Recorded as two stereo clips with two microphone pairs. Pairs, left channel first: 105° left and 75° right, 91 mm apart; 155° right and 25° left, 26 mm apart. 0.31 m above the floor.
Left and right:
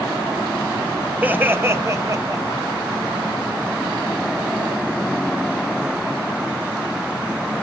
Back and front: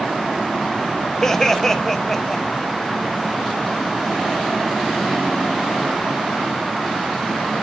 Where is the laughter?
115° right, 1.2 m; by 2.6 s 75° right, 1.5 m.